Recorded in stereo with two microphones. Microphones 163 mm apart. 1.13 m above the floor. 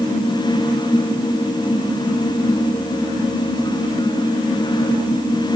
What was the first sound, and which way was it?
Only background noise.